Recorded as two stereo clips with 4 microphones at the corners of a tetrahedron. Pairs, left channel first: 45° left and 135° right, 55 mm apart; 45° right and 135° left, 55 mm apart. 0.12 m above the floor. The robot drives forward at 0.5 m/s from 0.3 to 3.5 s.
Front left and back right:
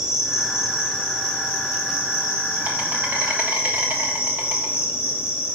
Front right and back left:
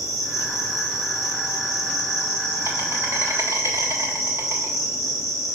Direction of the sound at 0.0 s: 145° left.